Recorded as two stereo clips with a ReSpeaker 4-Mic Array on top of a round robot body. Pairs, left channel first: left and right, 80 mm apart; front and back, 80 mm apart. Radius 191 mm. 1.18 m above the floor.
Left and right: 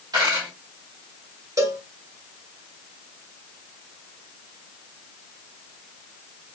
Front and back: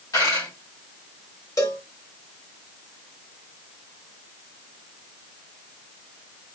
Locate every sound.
0.1 s a dropped coin: 50° right, 1.1 m
1.6 s a cowbell: 50° right, 1.5 m